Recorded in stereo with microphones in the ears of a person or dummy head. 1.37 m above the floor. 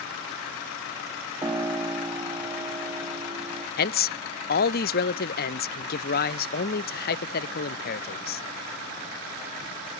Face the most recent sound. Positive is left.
turn(degrees=45)  # may be behind; listen again after turning